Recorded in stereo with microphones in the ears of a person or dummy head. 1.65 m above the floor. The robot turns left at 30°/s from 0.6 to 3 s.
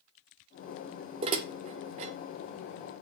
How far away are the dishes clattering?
About 0.9 m.